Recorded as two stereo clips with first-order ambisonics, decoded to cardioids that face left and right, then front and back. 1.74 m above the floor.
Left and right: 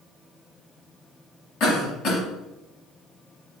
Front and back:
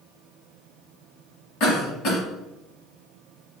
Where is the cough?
45° left, 1.4 m.